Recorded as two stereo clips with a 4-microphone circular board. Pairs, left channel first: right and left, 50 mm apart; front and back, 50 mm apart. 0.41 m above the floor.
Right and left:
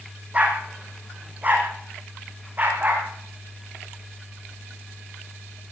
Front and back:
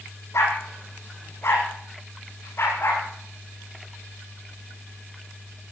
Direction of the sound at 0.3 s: 30° left.